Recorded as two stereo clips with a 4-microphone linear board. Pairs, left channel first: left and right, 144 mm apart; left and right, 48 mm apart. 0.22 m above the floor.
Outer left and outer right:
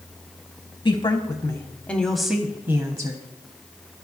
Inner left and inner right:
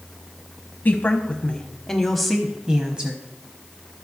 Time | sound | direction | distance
0.8 | a woman speaking | 35° left (ahead or behind) | 1.2 m